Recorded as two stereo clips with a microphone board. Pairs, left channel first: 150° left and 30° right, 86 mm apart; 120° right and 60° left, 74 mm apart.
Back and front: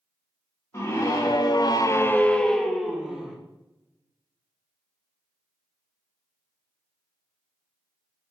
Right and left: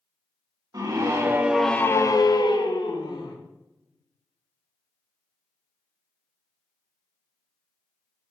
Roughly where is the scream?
Left.